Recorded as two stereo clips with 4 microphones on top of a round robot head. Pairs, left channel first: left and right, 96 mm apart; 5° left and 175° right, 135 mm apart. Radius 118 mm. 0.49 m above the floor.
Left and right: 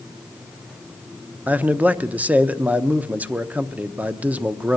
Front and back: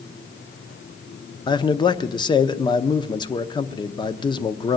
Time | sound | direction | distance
1.5 | a man speaking | 25° right | 0.8 m